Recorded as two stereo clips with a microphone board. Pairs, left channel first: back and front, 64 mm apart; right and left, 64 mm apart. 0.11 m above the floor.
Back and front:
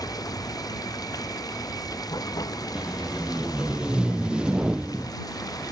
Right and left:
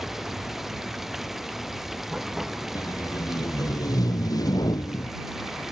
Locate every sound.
0.0 s running water: 175° left
2.8 s tape being pulled: 75° right